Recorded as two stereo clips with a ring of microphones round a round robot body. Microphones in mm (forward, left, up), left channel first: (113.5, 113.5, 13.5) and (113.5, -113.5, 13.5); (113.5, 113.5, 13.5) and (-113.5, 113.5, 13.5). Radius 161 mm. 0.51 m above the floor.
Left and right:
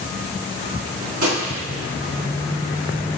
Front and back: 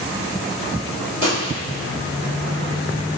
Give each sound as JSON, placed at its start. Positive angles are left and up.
{"t": 1.2, "sound": "a gunshot", "azimuth_deg": -115, "distance_m": 1.5}